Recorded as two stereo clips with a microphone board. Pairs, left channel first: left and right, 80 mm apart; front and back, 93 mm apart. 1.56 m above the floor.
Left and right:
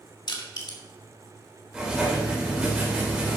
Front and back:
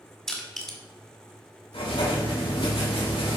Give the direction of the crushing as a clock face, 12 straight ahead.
9 o'clock.